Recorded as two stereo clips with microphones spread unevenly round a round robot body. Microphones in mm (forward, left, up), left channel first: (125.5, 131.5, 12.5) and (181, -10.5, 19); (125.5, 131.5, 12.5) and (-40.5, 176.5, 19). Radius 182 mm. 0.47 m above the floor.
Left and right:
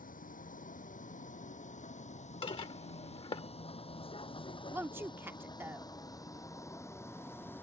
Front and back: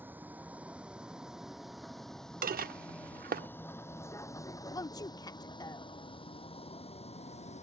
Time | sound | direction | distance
0.0 | a vehicle | 85° left | ?
2.4 | dishes clattering | 160° left | ?
4.7 | a woman speaking | 10° right | ?